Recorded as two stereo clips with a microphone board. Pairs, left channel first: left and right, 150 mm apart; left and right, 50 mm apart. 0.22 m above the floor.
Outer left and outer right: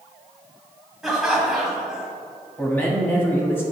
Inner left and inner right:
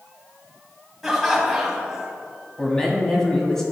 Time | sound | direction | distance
1.0 | laughter | 5° right (ahead or behind) | 1.4 m
2.6 | a man speaking | 15° left (ahead or behind) | 1.2 m